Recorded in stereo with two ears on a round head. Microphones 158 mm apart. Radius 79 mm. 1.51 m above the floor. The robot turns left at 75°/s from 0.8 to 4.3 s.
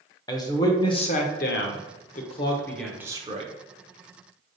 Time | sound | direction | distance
0.3 | a man speaking | 155° left | 0.8 m